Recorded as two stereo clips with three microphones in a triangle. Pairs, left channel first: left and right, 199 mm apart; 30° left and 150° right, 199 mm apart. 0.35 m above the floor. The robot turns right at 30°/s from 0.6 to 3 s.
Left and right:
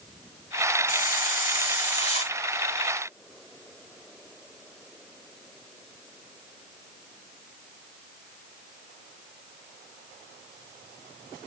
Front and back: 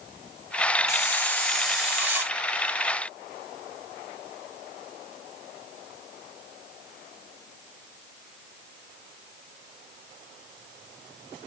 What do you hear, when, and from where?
0.9 s a hiss: 95° left, 1.5 m; by 2.4 s 140° left, 1.5 m